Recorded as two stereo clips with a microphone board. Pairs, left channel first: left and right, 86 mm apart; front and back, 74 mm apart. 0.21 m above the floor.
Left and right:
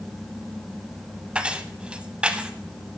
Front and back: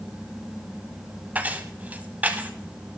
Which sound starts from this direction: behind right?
Keys jangling, at 1.4 s.